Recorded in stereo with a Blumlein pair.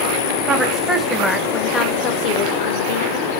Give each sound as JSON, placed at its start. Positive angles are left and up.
{"t": 0.5, "sound": "a woman speaking", "azimuth_deg": -20, "distance_m": 1.2}